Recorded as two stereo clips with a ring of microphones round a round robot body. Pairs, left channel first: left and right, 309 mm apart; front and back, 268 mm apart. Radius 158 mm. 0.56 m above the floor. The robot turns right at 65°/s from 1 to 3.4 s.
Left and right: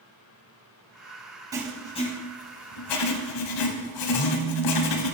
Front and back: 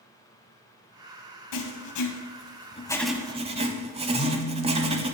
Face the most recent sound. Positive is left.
turn(degrees=35)